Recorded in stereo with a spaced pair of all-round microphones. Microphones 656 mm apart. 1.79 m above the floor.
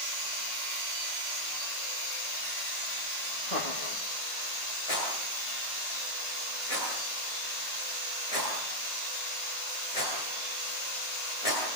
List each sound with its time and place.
3.5 s laughter: 75° left (ahead or behind), 3.5 m
4.9 s a rattle: 60° left (ahead or behind), 10 m